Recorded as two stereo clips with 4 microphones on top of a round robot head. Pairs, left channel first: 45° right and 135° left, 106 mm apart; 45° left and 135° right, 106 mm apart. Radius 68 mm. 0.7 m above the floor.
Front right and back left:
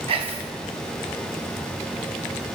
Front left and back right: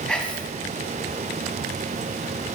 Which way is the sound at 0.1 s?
125° left.